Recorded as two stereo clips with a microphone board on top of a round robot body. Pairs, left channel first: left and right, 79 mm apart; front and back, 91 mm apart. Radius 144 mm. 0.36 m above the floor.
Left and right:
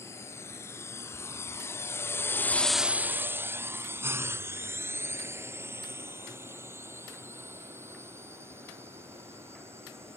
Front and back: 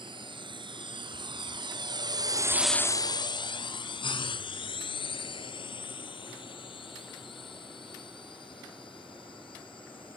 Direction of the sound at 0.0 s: 150° left.